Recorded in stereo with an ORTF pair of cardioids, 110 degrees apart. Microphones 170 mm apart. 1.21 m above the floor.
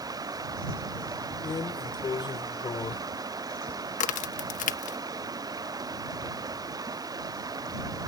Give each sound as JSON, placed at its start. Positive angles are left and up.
{"t": 0.0, "sound": "running water", "azimuth_deg": -25}
{"t": 1.4, "sound": "a drawer", "azimuth_deg": 30}
{"t": 4.0, "sound": "a crack", "azimuth_deg": 55}